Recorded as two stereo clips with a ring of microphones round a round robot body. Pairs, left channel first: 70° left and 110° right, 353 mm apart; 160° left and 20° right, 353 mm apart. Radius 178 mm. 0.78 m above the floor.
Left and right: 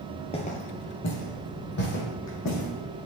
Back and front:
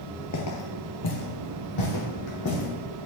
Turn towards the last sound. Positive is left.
turn(degrees=115)